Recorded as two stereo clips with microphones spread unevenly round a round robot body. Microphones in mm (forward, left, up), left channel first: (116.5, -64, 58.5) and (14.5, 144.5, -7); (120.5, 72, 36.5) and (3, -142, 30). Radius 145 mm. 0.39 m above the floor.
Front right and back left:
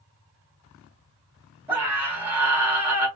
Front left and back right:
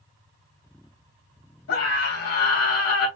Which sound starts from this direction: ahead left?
A scream, at 1.7 s.